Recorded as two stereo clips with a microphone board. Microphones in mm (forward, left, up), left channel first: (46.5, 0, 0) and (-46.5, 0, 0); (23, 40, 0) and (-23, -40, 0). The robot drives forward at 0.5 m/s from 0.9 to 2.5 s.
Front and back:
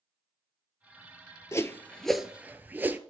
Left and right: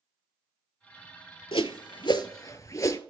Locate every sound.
1.5 s a whoosh: 55° left, 0.6 m; by 3.0 s 110° left, 0.5 m